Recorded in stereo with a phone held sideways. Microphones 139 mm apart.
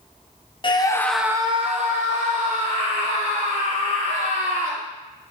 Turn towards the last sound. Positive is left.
turn(degrees=-70)  # may be behind; listen again after turning